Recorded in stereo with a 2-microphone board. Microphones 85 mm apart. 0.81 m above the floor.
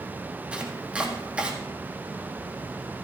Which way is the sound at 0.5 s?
15° right (ahead or behind).